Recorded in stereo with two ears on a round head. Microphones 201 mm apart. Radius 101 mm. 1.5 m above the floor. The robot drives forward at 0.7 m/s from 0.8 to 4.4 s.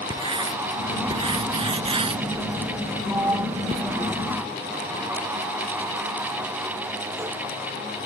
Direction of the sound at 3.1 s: 10° right (ahead or behind).